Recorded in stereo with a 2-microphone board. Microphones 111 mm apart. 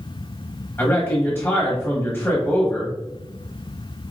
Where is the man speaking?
20° left (ahead or behind), 1.1 m.